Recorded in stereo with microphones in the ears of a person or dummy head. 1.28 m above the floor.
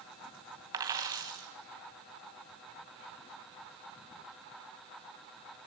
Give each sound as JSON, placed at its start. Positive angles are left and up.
{"t": 0.7, "sound": "a dropped coin", "side_deg": -20, "distance_m": 2.5}